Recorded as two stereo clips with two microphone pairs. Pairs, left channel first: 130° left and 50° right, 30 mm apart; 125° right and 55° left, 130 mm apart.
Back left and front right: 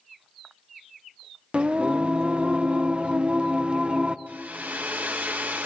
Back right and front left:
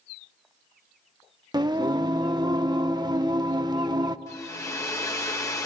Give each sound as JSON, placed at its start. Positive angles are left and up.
{"t": 1.5, "sound": "singing", "azimuth_deg": -5, "distance_m": 0.8}
{"t": 4.3, "sound": "a hair dryer", "azimuth_deg": -65, "distance_m": 1.9}